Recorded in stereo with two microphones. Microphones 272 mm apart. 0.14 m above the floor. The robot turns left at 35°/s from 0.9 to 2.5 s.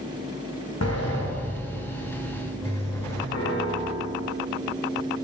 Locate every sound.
0.8 s a sliding door: 65° left, 2.0 m; by 3.2 s 10° left, 2.0 m
3.3 s a piano: 60° left (ahead or behind), 2.5 m